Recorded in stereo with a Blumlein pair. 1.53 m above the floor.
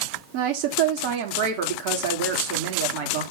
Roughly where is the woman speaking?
Ahead right.